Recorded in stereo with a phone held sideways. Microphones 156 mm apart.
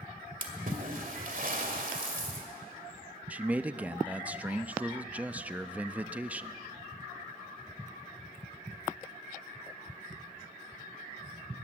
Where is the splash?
60° right (ahead or behind), 2 m.